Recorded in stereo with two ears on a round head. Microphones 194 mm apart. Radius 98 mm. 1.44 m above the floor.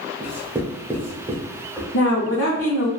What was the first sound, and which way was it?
Writing, 10° right (ahead or behind).